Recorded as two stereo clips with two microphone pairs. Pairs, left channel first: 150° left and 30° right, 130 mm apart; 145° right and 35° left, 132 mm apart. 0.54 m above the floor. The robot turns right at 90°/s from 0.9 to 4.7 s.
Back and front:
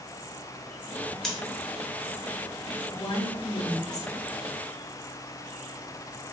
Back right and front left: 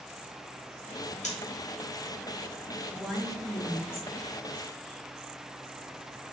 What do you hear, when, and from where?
1.2 s scissors: 125° right, 1.0 m; by 1.4 s 115° right, 1.0 m
2.9 s a woman speaking: 105° left, 1.0 m; by 4.1 s 145° right, 1.0 m